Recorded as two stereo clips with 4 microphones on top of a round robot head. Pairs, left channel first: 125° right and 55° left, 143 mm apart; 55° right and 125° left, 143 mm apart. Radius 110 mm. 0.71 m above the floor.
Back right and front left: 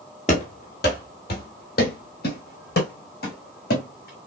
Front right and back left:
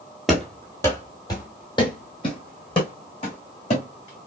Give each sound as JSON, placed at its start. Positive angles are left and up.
{"t": 0.3, "sound": "running footsteps", "azimuth_deg": -145, "distance_m": 0.8}